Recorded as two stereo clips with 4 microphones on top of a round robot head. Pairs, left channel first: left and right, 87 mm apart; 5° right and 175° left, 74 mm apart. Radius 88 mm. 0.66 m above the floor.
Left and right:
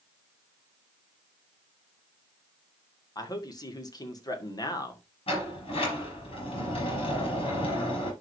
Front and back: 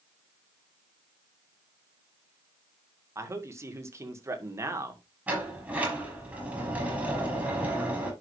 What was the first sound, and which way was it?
A man speaking, 125° left.